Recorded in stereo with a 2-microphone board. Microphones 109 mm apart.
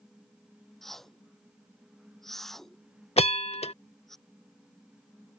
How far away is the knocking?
I don't hear knocking.